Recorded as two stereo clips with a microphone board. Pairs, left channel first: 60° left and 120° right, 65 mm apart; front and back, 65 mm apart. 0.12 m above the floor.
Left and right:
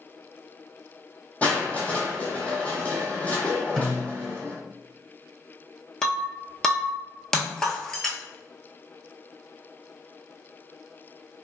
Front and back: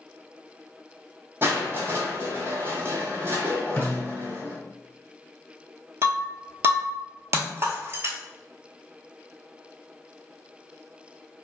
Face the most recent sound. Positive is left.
turn(degrees=140)